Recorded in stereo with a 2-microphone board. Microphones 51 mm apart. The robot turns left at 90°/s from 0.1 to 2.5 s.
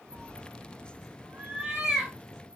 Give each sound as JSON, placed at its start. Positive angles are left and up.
{"t": 0.1, "sound": "a cat meowing", "side_deg": 15, "distance_m": 1.2}